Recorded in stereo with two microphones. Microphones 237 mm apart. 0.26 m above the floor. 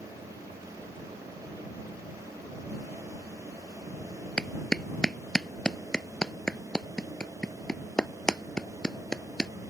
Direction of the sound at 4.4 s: 5° left (ahead or behind).